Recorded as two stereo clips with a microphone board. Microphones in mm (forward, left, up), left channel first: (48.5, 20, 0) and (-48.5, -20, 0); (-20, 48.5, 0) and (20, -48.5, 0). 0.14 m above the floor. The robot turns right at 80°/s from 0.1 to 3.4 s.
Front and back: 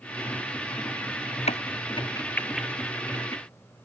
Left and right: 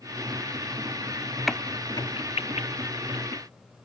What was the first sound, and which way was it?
A crack, 25° left.